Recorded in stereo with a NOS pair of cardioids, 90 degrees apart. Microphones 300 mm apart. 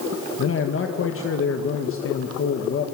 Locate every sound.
0.4 s a man speaking: 45° left, 1.9 m